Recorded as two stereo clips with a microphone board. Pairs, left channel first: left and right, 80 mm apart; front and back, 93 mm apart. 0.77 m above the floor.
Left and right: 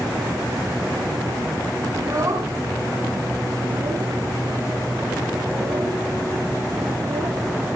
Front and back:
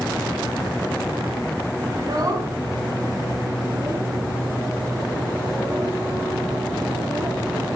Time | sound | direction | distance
1.9 | a child speaking | 135° right | 3.5 m